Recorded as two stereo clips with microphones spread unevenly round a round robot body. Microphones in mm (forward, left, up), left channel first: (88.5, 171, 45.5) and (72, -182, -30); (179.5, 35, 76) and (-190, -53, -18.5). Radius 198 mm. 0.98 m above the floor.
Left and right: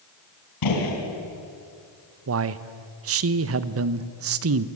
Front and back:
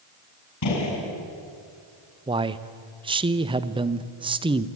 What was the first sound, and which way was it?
A gunshot, 60° left.